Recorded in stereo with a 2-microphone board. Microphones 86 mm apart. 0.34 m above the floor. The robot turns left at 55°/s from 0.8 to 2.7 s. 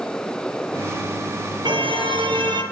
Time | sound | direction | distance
1.6 | a car horn | 65° right | 5 m